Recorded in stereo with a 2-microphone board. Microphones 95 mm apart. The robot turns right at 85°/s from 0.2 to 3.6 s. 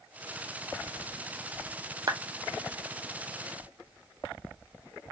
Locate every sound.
2.1 s a clap: 40° right (ahead or behind), 0.6 m; by 2.2 s 30° right (ahead or behind), 0.6 m